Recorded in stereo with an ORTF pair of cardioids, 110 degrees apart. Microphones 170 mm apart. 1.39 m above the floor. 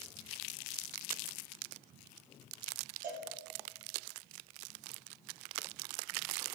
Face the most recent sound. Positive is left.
turn(degrees=-50)